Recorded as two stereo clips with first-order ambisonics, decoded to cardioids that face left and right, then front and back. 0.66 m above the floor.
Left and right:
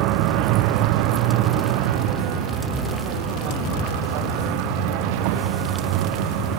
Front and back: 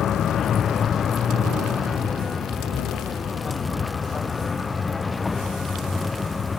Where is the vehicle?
60° right; by 6.6 s 80° right.